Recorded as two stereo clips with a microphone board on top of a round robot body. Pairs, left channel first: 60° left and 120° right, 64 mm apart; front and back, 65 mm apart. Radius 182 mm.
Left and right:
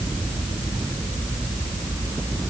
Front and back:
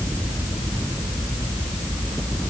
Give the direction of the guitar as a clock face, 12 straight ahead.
No guitar in this recording.